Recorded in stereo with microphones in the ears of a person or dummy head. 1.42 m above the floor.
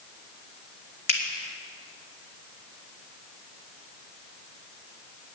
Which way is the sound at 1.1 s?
60° left (ahead or behind).